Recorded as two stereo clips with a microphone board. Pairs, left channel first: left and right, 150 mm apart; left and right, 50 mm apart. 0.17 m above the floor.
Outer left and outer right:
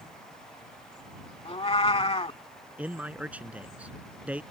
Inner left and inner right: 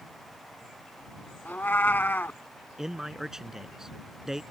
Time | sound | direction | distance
1.4 | a cat meowing | 40° left (ahead or behind) | ?
2.8 | a man speaking | 10° right (ahead or behind) | ?